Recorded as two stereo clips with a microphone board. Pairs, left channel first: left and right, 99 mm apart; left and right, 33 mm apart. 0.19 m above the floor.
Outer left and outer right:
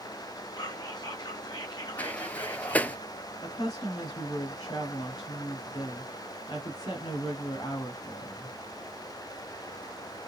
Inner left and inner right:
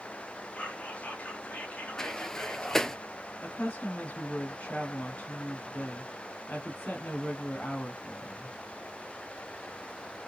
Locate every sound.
0.6 s whispering: 45° left (ahead or behind), 2 m
2.0 s a sliding door: 15° left (ahead or behind), 0.5 m
3.4 s a woman speaking: 45° left (ahead or behind), 1.3 m